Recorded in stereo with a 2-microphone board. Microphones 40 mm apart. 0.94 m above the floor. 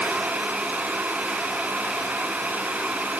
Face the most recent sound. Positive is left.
No sound to turn to.